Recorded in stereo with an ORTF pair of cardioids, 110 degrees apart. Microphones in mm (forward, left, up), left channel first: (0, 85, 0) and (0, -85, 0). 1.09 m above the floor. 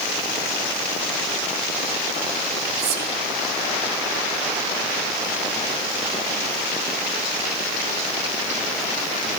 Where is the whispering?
70° right, 1.0 m.